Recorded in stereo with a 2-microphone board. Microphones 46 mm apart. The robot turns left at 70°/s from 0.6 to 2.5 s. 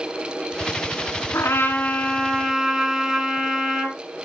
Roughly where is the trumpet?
Left.